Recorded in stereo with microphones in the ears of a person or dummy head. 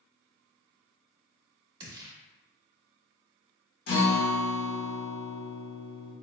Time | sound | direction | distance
1.8 | a gunshot | 30° right (ahead or behind) | 0.6 m
3.9 | a guitar | 60° left (ahead or behind) | 1.2 m